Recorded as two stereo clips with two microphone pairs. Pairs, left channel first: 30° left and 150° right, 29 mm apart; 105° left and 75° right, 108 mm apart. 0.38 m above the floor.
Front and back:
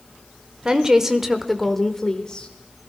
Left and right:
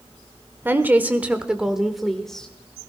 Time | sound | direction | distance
0.7 | a woman speaking | 125° right | 1.2 m